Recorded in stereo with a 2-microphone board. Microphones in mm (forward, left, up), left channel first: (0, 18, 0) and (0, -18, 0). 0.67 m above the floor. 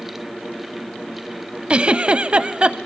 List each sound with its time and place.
1.7 s a giggle: 35° right (ahead or behind), 0.5 m